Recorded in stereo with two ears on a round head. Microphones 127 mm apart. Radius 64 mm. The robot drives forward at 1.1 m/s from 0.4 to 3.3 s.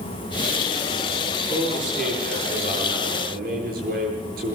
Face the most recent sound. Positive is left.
turn(degrees=-65)  # may be behind; listen again after turning